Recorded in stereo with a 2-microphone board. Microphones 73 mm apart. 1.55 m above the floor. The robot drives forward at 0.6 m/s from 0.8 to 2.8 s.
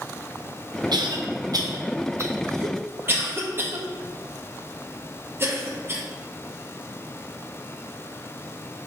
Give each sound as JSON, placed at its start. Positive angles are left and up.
{"t": 0.9, "sound": "a cough", "side_deg": -75, "distance_m": 0.8}